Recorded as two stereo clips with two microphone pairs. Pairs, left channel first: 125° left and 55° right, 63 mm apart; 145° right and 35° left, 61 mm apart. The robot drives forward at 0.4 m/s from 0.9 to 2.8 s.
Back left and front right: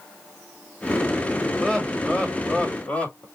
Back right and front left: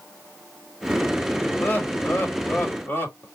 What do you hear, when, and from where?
1.6 s laughter: 175° right, 1.5 m